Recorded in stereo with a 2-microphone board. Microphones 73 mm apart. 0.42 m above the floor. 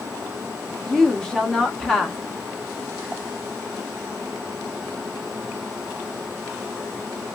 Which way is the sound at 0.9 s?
10° left (ahead or behind).